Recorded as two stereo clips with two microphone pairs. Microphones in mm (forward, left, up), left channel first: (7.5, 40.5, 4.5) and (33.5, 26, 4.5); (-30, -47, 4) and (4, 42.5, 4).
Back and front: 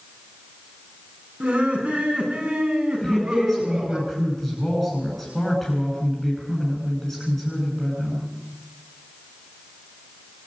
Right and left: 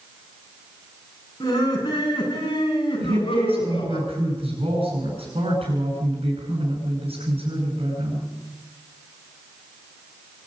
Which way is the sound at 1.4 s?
65° right.